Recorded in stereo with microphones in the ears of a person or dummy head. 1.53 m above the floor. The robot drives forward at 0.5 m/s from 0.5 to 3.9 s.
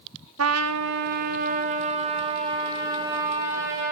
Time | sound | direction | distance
0.4 | a trumpet | 75° right (ahead or behind) | 0.6 m